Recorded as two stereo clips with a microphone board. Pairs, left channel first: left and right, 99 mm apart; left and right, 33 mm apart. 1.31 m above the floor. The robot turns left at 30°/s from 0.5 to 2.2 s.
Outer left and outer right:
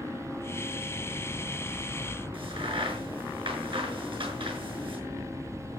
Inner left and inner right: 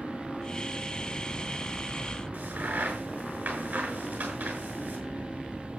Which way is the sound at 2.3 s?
60° right (ahead or behind).